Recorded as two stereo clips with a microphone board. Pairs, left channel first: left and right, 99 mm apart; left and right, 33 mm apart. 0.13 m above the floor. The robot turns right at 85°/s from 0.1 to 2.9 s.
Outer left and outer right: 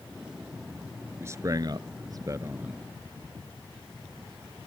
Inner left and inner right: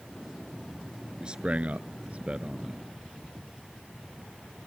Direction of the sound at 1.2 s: 25° right (ahead or behind).